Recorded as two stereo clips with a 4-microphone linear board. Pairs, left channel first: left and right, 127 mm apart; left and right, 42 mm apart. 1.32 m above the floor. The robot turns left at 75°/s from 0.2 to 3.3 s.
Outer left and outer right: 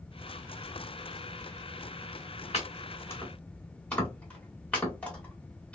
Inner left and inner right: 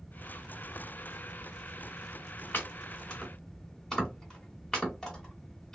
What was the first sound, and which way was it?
Chopping, 55° left (ahead or behind).